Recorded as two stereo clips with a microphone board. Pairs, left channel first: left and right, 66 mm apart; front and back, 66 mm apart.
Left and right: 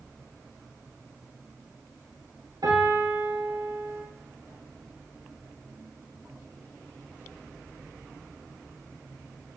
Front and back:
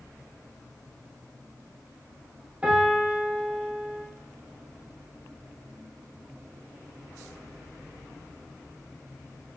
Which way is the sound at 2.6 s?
110° right.